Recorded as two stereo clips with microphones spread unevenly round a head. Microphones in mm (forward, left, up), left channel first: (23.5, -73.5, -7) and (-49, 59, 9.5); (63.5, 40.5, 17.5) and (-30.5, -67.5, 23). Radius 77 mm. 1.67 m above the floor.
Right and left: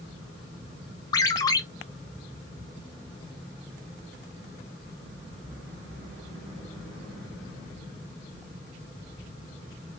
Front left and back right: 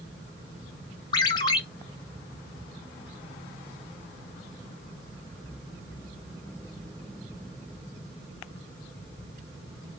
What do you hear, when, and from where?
1.1 s a ringtone: straight ahead, 0.8 m